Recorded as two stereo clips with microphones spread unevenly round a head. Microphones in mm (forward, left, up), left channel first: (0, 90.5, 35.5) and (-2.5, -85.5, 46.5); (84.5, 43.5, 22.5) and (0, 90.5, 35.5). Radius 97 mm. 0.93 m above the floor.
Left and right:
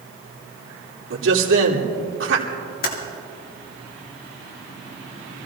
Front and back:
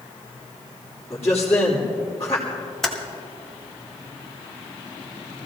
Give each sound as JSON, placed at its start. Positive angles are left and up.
{"t": 1.1, "sound": "a man speaking", "azimuth_deg": -100, "distance_m": 2.5}
{"t": 2.8, "sound": "typing on a keyboard", "azimuth_deg": 55, "distance_m": 2.0}